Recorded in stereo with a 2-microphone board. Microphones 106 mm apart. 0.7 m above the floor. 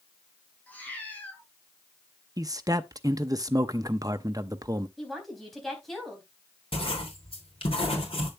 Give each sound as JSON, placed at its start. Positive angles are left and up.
{"t": 0.7, "sound": "a cat meowing", "side_deg": 15, "distance_m": 4.0}
{"t": 2.4, "sound": "a man speaking", "side_deg": -35, "distance_m": 0.7}
{"t": 5.0, "sound": "a woman speaking", "side_deg": 0, "distance_m": 4.0}
{"t": 6.7, "sound": "writing", "side_deg": 60, "distance_m": 3.0}